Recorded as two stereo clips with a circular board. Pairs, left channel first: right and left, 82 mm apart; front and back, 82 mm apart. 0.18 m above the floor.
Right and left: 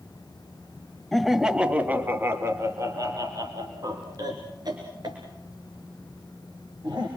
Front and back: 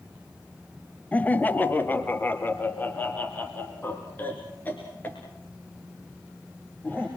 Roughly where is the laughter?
Ahead.